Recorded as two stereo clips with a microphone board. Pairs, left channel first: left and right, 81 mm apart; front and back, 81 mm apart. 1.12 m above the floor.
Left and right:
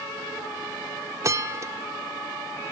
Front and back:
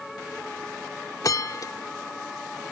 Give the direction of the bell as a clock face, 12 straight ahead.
1 o'clock.